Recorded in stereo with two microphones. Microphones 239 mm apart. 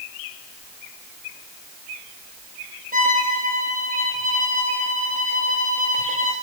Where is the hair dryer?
No hair dryer in this recording.